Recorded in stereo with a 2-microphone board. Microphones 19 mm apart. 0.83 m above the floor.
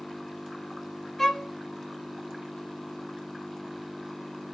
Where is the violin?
15° left (ahead or behind), 0.9 m.